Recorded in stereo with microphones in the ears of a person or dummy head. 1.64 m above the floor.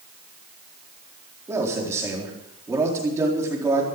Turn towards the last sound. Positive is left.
turn(degrees=-15)  # may be behind; listen again after turning